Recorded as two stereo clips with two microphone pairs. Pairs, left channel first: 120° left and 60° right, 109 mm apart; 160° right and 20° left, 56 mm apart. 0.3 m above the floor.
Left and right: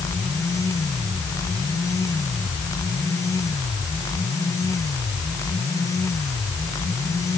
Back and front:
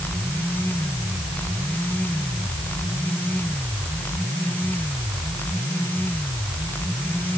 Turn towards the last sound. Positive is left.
No sound to turn to.